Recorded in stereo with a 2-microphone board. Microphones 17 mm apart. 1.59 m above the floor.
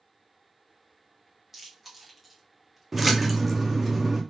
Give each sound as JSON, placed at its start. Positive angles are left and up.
{"t": 1.5, "sound": "chewing", "side_deg": -15, "distance_m": 1.7}
{"t": 2.9, "sound": "a splash", "side_deg": -10, "distance_m": 0.8}